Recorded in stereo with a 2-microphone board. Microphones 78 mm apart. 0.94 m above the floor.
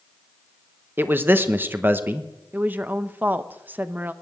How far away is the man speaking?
About 1.0 m.